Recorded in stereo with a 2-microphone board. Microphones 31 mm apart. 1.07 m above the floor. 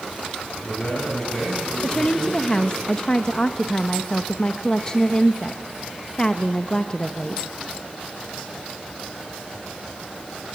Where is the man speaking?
35° left (ahead or behind), 9.5 m; by 2.8 s 40° left (ahead or behind), 10.5 m.